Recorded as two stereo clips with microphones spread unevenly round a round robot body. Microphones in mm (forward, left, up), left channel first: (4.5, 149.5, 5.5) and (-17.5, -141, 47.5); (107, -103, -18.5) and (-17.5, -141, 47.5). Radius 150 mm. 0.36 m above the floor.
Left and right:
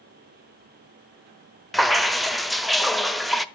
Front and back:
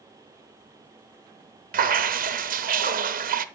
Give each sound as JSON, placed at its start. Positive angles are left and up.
{"t": 1.7, "sound": "dripping", "azimuth_deg": 165, "distance_m": 0.9}